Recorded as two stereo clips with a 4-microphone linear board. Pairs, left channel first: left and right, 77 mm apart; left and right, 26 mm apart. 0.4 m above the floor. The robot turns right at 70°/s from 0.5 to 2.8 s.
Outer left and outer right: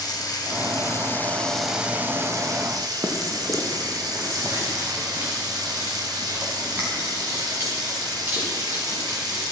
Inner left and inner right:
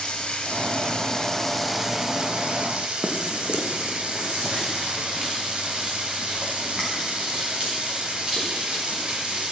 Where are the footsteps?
45° right (ahead or behind), 1.6 m; by 9.5 s 25° right (ahead or behind), 5 m.